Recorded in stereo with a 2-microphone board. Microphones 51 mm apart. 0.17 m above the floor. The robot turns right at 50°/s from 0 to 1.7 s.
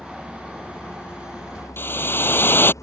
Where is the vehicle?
10° left; by 2.8 s 95° left.